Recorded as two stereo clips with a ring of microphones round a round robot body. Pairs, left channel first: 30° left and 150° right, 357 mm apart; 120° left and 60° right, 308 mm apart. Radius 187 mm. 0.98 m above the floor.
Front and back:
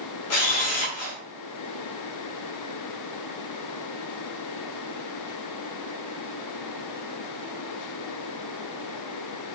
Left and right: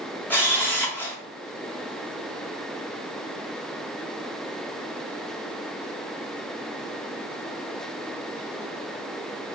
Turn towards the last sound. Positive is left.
turn(degrees=40)